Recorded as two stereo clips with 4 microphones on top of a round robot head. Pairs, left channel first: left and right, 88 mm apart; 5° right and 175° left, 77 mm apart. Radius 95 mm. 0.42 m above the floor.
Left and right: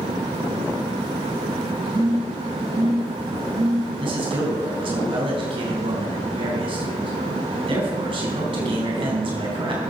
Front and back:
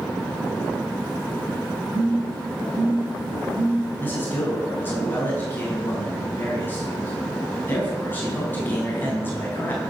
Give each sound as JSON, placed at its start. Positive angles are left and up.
{"t": 1.9, "sound": "a phone buzzing", "azimuth_deg": -135, "distance_m": 6.0}
{"t": 4.0, "sound": "a man speaking", "azimuth_deg": -75, "distance_m": 4.5}